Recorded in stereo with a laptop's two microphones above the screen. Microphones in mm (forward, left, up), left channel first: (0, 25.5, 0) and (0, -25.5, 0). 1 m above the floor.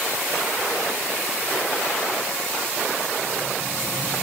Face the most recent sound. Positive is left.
No sound to turn to.